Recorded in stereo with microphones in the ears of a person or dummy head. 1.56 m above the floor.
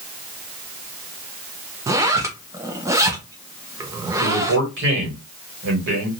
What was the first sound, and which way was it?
A zipper, 20° right (ahead or behind).